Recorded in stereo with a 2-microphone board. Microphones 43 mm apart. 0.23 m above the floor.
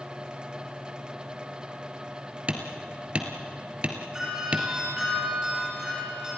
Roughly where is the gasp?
I don't hear a gasp.